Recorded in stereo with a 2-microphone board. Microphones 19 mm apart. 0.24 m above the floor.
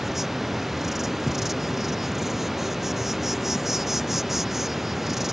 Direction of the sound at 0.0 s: 15° right (ahead or behind).